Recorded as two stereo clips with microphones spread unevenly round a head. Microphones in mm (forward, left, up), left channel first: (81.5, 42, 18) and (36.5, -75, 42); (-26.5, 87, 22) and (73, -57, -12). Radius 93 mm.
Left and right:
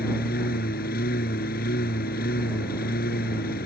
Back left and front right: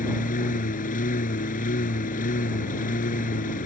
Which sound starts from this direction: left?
A lawn mower, at 0.0 s.